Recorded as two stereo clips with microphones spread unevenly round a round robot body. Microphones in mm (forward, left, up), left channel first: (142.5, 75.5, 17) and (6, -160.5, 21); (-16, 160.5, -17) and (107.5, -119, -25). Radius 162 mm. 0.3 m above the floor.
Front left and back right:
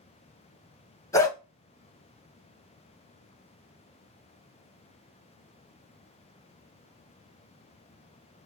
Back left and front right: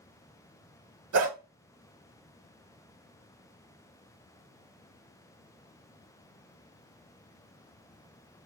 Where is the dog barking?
20° right, 1.1 m.